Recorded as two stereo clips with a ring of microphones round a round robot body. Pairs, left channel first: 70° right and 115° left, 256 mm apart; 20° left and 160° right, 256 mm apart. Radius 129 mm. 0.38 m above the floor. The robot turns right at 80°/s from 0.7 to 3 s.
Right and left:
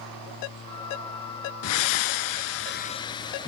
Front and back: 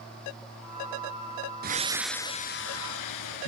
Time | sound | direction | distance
1.6 | breathing | 105° right | 1.5 m